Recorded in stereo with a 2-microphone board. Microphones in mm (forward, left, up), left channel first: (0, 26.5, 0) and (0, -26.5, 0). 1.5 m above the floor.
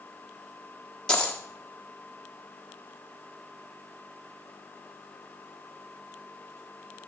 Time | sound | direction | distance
1.1 | a dropped coin | 20° left (ahead or behind) | 1.3 m